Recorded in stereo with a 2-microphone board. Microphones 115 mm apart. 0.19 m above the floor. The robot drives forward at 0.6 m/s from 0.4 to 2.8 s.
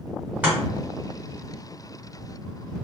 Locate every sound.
0.4 s chopping: 15° right (ahead or behind), 1.8 m